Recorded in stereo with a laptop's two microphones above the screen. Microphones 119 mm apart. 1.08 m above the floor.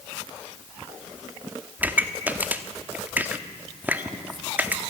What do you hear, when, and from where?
1.8 s a pop: 15° right (ahead or behind), 1.1 m